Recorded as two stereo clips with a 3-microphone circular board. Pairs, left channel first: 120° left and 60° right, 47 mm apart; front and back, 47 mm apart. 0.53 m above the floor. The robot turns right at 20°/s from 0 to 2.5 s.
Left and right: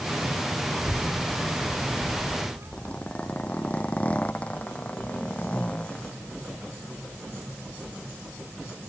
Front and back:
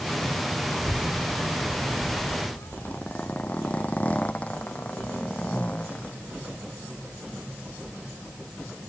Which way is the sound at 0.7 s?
55° right.